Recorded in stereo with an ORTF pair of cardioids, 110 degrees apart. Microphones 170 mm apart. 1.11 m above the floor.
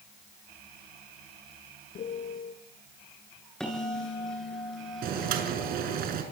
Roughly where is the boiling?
Ahead right.